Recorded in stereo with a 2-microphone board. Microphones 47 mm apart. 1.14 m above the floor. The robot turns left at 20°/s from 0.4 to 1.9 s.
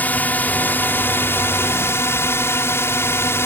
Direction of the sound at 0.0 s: 140° left.